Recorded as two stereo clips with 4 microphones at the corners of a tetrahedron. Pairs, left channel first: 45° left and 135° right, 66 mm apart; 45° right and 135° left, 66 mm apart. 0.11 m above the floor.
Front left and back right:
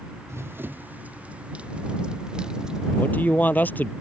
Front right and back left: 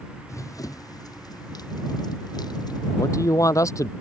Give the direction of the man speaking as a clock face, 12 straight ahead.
12 o'clock.